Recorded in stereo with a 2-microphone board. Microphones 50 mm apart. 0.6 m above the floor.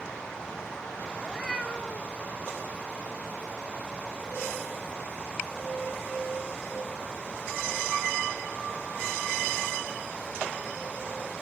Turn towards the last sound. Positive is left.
turn(degrees=30)  # may be behind; listen again after turning